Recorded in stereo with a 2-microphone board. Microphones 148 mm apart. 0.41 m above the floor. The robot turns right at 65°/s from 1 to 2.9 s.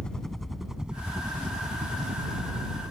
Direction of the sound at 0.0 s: 5° left (ahead or behind).